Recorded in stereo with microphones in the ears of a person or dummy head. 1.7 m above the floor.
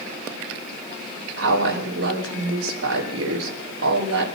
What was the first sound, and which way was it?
A woman speaking, 85° right.